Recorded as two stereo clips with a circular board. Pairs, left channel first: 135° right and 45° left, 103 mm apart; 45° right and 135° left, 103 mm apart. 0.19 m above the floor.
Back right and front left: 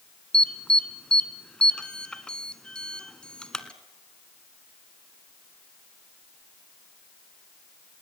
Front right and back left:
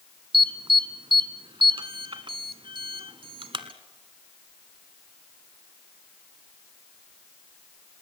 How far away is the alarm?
About 1.5 m.